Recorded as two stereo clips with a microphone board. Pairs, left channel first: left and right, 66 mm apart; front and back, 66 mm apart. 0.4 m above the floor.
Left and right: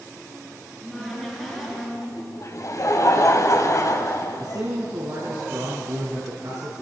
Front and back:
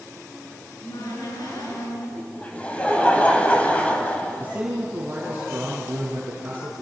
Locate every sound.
0.6 s a cupboard door: straight ahead, 6.5 m
2.2 s laughter: 70° left, 3 m
4.4 s a man speaking: 120° right, 4.5 m